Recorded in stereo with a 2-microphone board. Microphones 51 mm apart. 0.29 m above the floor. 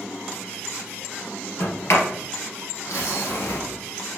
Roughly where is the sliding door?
Left.